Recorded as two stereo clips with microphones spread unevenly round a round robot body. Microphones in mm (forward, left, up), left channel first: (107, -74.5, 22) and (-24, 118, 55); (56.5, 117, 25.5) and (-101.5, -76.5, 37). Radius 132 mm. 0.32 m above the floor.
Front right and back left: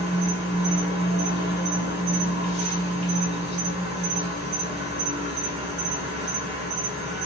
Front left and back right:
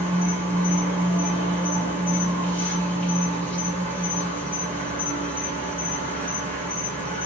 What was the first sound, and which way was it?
An insect, 115° left.